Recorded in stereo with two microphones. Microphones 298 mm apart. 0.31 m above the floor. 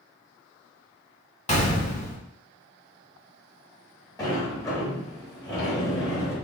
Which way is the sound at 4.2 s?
10° left (ahead or behind).